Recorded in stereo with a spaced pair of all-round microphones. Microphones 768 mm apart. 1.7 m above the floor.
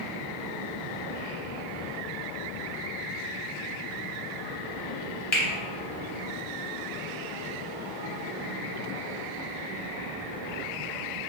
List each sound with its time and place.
5.3 s a finger snap: 40° left (ahead or behind), 0.9 m